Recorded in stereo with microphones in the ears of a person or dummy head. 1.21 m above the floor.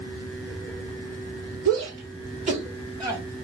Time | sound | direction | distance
1.6 | a shout | 65° right (ahead or behind) | 1.8 m